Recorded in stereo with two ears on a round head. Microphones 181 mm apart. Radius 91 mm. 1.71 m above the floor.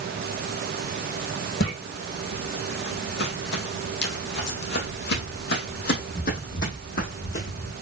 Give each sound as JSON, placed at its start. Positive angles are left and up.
{"t": 1.6, "sound": "footsteps", "side_deg": 50, "distance_m": 3.5}